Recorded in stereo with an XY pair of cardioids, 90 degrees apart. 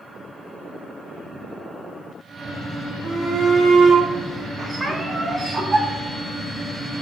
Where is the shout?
70° right, 3.5 m; by 5.8 s 30° right, 5.5 m.